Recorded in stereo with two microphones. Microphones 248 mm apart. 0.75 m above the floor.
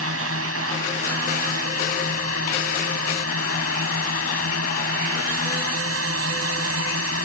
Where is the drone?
70° right (ahead or behind).